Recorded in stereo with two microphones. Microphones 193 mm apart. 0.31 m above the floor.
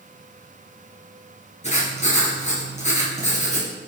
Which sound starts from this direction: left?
Writing, at 1.6 s.